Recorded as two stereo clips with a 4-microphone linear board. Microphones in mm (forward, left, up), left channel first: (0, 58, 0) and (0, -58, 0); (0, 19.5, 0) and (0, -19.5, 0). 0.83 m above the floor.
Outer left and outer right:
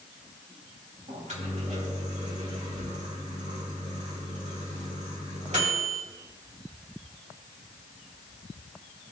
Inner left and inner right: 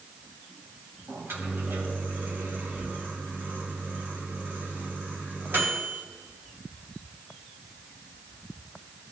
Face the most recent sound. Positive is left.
turn(degrees=-75)  # may be behind; listen again after turning